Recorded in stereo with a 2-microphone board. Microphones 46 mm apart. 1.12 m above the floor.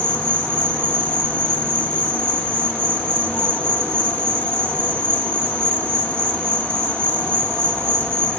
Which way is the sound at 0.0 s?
75° right (ahead or behind).